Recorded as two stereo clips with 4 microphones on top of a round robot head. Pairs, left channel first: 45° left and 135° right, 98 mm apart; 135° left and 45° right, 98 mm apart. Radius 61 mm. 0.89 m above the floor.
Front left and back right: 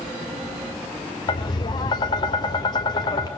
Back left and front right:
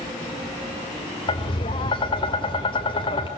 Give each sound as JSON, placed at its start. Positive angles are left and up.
{"t": 1.3, "sound": "tapping", "azimuth_deg": 95, "distance_m": 3.0}